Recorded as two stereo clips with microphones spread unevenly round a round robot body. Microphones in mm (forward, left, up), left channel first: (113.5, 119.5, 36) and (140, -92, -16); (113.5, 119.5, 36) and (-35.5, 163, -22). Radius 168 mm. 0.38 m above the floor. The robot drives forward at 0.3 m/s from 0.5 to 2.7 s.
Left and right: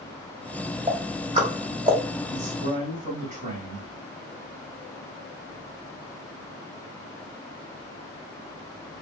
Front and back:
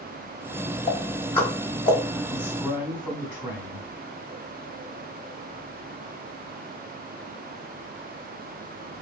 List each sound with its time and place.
0.9 s ticking: 85° right, 0.8 m; by 2.0 s 120° right, 0.9 m
2.3 s a man speaking: 95° right, 1.5 m; by 3.9 s 100° right, 1.5 m